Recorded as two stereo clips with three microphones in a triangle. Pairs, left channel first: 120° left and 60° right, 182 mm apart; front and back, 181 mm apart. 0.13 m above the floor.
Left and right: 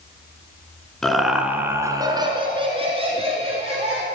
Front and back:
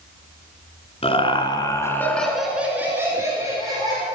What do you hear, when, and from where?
1.0 s laughter: 35° left, 1.5 m; by 4.0 s 115° right, 2.5 m